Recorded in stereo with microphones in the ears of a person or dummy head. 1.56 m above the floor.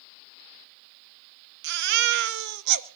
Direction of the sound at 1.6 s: 60° right (ahead or behind).